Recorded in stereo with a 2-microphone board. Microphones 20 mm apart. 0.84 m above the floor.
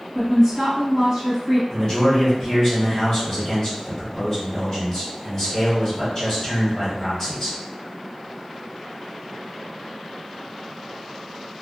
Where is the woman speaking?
25° right (ahead or behind), 1.6 m.